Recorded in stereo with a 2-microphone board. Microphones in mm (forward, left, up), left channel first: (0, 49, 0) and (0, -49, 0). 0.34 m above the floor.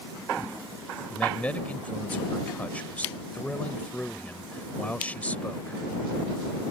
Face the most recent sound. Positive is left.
turn(degrees=15)  # may be behind; listen again after turning